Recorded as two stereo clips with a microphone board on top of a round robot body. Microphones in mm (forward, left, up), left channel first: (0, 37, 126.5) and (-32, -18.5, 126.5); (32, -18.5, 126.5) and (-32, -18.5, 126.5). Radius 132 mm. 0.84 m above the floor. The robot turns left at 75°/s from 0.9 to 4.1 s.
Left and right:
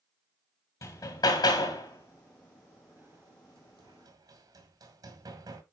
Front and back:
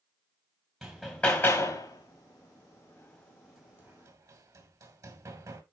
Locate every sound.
0.8 s hammering: 95° left, 2.5 m; by 5.6 s 145° right, 2.5 m